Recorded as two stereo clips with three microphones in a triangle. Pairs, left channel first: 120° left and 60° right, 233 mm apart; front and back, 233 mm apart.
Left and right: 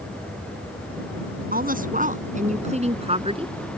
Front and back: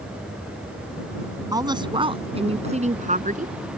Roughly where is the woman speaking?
Right.